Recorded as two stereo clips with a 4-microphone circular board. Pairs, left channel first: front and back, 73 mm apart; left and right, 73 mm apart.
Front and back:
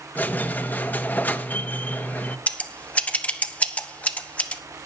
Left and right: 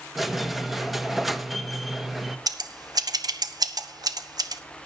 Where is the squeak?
5° right, 0.9 m.